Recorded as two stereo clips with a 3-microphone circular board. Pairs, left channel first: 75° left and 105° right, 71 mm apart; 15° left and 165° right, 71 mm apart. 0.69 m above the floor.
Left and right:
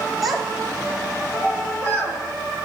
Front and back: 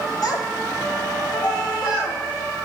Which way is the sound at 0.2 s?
15° right.